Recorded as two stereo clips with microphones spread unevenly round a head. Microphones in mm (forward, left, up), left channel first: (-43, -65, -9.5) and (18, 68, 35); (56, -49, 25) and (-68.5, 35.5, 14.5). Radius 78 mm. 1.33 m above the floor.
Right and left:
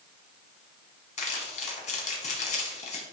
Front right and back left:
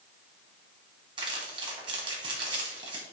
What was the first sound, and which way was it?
Crumpling, 160° right.